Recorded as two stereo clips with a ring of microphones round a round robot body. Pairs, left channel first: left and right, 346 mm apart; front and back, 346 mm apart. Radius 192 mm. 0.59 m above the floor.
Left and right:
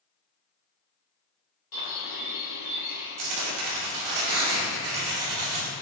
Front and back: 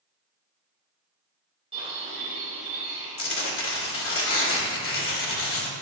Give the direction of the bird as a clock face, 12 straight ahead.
9 o'clock.